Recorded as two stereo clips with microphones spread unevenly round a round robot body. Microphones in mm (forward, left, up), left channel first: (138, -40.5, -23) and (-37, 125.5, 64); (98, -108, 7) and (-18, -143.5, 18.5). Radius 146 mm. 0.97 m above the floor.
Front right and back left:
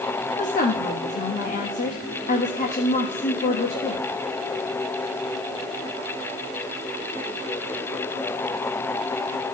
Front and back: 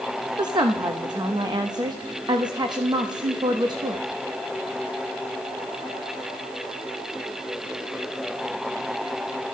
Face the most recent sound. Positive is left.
turn(degrees=-105)